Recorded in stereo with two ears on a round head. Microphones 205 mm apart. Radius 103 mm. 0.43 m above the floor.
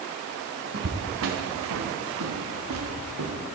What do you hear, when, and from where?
0.7 s footsteps: 50° right (ahead or behind), 2.5 m; by 3.4 s 70° right (ahead or behind), 3.5 m